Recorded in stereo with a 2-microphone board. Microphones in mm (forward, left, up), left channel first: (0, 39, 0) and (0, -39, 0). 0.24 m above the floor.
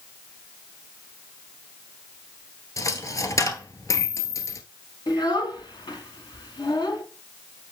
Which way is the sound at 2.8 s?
40° left (ahead or behind).